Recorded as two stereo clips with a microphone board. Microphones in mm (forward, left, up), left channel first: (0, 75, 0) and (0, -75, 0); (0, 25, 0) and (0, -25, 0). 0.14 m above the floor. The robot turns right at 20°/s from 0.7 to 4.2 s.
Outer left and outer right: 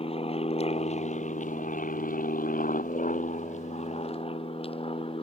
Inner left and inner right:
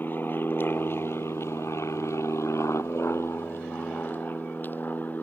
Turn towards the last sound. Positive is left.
turn(degrees=40)  # may be behind; listen again after turning